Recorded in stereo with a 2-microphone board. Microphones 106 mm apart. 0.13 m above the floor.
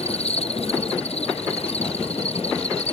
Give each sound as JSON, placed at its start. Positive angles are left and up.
{"t": 0.0, "sound": "an insect", "side_deg": 75}